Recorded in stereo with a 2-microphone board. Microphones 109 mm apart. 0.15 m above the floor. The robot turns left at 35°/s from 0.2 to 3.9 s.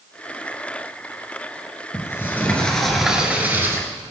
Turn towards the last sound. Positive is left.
turn(degrees=-35)